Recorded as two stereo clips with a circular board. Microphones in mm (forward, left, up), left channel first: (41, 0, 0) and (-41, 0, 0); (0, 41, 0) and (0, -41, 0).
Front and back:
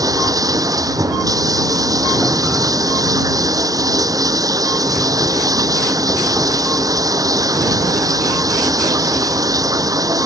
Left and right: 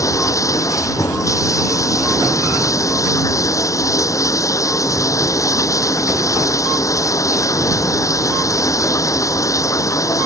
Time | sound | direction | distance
0.0 | running water | 135° left | ?